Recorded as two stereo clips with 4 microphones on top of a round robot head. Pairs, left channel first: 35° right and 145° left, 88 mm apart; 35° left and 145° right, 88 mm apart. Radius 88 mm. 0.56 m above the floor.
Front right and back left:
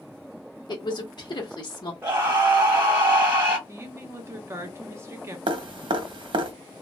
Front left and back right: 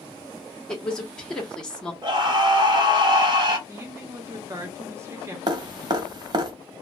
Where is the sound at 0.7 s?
45° right, 1.0 m.